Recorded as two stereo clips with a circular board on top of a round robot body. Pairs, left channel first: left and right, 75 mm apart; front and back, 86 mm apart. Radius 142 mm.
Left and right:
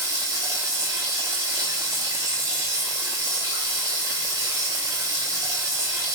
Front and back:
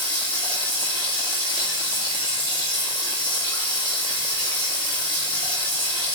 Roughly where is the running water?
Ahead right.